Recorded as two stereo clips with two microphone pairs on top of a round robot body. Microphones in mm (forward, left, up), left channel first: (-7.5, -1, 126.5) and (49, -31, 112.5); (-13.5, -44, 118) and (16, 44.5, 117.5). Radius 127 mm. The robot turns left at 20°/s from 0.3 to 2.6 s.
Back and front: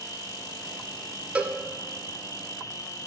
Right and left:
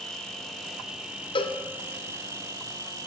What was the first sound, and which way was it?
An insect, 170° left.